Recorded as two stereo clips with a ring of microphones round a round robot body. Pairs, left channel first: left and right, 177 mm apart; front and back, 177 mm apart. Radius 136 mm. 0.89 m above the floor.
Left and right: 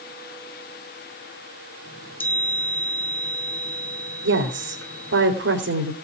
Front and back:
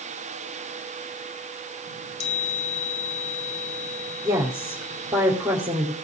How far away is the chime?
About 8.5 m.